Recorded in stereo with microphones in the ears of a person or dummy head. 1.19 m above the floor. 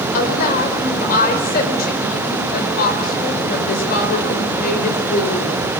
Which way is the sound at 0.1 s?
50° left (ahead or behind).